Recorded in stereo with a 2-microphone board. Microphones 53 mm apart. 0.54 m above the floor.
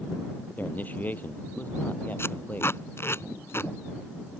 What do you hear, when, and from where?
0.6 s a man speaking: 35° left (ahead or behind)
2.2 s tape being pulled: 50° left (ahead or behind)